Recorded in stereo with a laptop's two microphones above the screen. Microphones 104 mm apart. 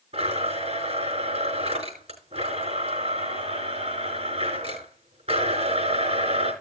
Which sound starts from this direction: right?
A blender, at 0.1 s.